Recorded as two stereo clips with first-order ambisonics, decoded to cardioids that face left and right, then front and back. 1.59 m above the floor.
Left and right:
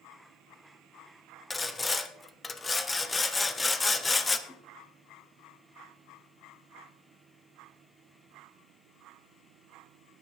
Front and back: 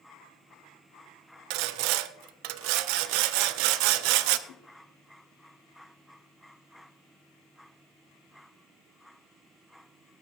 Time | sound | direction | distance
1.5 | sawing | 170° left | 0.6 m
4.5 | a whoosh | 10° left | 1.3 m